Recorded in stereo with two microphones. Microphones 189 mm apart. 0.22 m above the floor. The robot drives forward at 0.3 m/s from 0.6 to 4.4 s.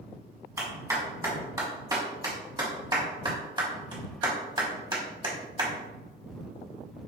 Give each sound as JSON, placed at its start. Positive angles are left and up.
{"t": 0.6, "sound": "a clap", "side_deg": -15, "distance_m": 1.7}